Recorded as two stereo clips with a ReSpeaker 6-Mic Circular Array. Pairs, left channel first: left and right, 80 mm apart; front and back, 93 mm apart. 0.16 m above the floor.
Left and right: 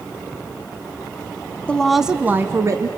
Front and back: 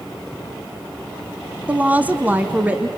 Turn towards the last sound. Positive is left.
turn(degrees=-110)